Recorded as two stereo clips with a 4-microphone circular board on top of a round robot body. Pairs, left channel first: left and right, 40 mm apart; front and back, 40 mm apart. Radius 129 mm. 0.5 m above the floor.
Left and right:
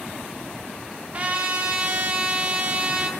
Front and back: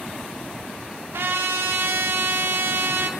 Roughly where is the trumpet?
Behind right.